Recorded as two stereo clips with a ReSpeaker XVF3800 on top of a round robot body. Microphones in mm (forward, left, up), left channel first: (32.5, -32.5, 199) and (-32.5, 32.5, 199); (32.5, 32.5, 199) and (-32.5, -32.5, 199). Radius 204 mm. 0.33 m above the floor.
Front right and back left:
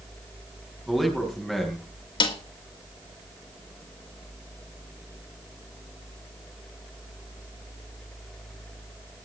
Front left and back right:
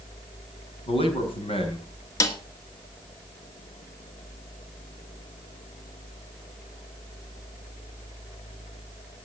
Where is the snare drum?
15° right, 1.5 m.